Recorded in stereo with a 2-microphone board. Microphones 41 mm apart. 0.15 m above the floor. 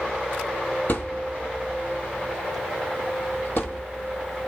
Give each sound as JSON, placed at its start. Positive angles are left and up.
{"t": 0.9, "sound": "a thud", "side_deg": 50, "distance_m": 1.5}